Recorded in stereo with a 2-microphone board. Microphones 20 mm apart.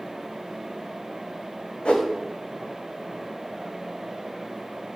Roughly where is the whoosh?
Left.